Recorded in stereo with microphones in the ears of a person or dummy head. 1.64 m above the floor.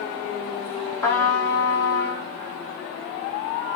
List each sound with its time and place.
1.0 s a trumpet: 15° left (ahead or behind), 0.6 m